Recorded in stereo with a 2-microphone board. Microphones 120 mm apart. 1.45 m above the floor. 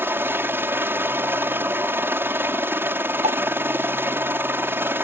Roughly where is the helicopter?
Centre.